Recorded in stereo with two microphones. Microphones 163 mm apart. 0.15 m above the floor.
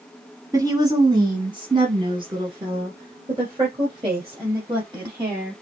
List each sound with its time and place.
0.5 s a woman speaking: 20° right (ahead or behind), 1.2 m; by 5.6 s 25° right (ahead or behind), 4 m